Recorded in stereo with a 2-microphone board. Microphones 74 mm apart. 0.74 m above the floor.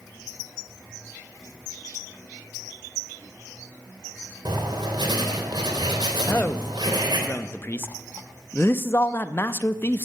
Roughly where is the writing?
Right.